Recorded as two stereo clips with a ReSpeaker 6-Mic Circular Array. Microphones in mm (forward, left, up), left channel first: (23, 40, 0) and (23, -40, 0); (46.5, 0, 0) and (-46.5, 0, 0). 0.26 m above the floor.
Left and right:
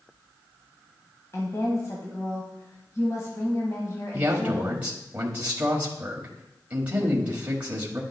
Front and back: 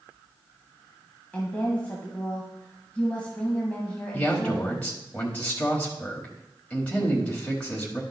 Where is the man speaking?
50° right, 1.1 m.